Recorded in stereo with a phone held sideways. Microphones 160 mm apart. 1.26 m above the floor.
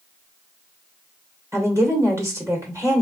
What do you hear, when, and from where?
1.5 s a woman speaking: 20° right (ahead or behind), 1.6 m